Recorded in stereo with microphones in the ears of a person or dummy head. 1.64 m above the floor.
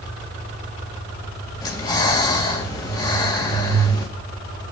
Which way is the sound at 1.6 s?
25° left (ahead or behind).